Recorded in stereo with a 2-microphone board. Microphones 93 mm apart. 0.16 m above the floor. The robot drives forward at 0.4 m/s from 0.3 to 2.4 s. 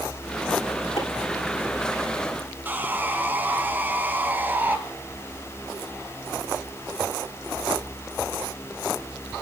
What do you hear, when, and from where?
1.0 s chopping: 75° left (ahead or behind), 6.5 m; by 1.1 s 80° left, 6.5 m
2.6 s sawing: 20° right (ahead or behind), 1.6 m